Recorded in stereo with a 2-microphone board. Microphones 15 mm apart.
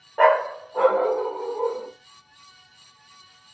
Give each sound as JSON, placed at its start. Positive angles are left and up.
{"t": 0.2, "sound": "a dog barking", "side_deg": -5, "distance_m": 0.7}